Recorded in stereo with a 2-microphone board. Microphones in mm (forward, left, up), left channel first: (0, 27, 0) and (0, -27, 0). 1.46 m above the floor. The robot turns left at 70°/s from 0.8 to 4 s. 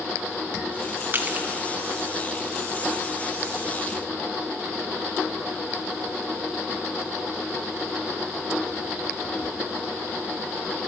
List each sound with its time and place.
1.1 s crushing: 40° right (ahead or behind), 0.8 m; by 1.5 s 20° right (ahead or behind), 0.8 m